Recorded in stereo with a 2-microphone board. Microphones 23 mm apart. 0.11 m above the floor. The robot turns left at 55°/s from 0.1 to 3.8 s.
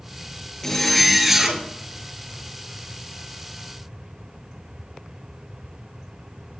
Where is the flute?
No flute in this recording.